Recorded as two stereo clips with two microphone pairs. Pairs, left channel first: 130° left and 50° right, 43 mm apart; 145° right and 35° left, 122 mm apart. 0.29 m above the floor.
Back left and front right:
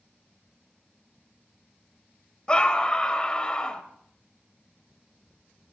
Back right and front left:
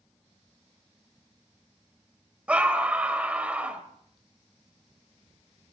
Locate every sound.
2.5 s a scream: 105° left, 1.6 m